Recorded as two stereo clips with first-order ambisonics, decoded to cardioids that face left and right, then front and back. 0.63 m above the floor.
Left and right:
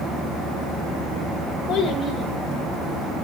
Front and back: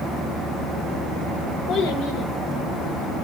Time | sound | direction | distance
1.7 | a child speaking | 20° left | 1.4 m